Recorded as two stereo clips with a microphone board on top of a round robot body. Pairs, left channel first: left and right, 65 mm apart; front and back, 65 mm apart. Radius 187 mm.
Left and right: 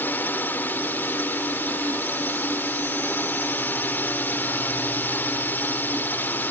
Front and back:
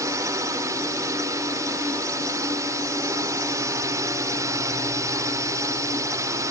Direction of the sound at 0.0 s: 150° left.